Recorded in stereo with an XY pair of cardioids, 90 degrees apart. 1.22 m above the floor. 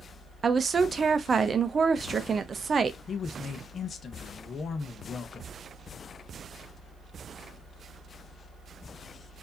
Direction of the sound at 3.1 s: 55° left.